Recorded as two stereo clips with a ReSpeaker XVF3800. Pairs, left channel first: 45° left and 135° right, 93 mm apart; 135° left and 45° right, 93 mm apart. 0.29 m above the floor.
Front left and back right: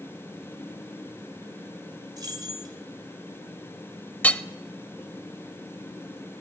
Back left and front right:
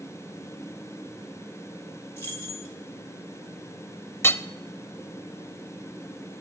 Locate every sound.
2.2 s keys jangling: 165° right, 1.5 m
4.2 s hammering: 100° left, 0.5 m